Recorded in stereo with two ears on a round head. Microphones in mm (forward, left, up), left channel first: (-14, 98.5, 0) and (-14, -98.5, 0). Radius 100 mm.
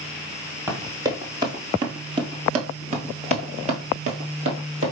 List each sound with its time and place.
0.7 s running footsteps: 15° right (ahead or behind), 1.6 m; by 4.9 s 25° right (ahead or behind), 1.7 m